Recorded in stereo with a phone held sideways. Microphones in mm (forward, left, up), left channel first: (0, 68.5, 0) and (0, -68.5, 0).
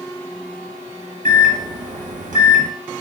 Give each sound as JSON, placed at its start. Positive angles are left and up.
{"t": 1.2, "sound": "a microwave", "side_deg": -65, "distance_m": 0.8}